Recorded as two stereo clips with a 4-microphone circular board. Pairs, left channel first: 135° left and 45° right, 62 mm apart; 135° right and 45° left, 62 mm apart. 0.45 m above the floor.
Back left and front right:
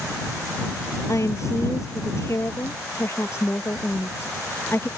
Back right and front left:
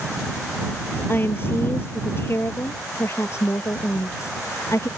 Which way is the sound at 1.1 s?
170° left.